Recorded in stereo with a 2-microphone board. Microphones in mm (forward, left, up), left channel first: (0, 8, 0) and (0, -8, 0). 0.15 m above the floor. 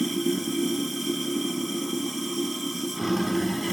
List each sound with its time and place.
0.0 s running water: 15° right (ahead or behind), 2 m